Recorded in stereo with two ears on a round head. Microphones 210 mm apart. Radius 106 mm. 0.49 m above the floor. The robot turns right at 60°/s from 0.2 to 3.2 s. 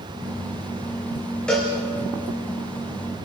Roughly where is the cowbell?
Centre.